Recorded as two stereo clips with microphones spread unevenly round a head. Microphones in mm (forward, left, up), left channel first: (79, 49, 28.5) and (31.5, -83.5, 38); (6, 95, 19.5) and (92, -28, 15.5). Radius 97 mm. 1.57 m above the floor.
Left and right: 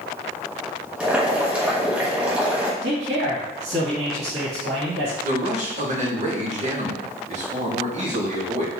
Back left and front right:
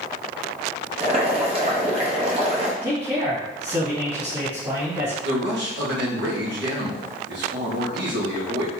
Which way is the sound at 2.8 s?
120° right.